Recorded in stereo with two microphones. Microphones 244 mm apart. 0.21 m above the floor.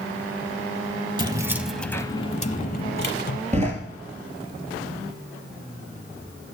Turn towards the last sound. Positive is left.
turn(degrees=-30)  # may be behind; listen again after turning